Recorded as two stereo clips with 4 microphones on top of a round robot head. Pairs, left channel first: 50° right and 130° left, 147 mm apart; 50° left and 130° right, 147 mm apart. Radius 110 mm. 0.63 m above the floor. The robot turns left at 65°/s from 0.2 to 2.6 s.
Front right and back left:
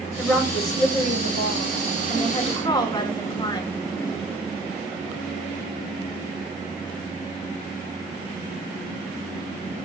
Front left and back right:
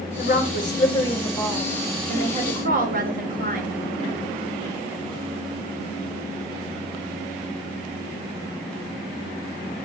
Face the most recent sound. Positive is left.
turn(degrees=-110)